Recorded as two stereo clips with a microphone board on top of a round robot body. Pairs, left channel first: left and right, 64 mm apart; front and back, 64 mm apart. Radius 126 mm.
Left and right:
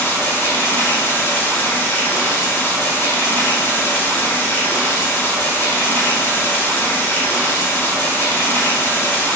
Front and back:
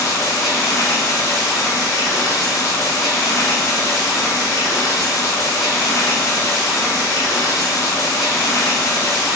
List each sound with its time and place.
0.0 s running water: 30° left, 0.9 m